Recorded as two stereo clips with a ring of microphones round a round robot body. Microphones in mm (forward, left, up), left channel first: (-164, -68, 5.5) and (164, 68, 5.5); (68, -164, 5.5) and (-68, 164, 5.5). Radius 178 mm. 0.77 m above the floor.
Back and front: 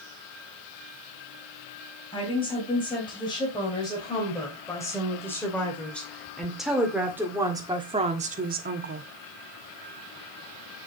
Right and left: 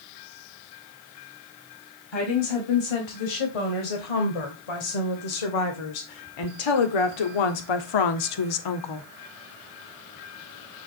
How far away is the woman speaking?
About 4 m.